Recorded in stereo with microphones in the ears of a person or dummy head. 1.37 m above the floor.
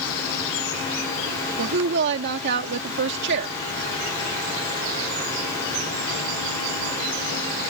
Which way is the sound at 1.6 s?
65° right (ahead or behind).